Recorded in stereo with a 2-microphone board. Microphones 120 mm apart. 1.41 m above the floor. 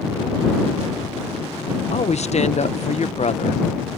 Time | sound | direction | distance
1.9 | a woman speaking | 70° left (ahead or behind) | ?